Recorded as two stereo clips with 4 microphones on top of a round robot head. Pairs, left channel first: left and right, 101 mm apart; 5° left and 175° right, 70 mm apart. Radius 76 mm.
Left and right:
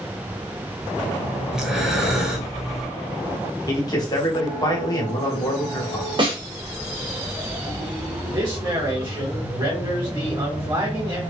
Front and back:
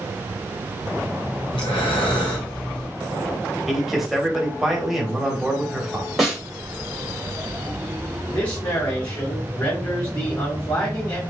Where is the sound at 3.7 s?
100° left, 1.5 m.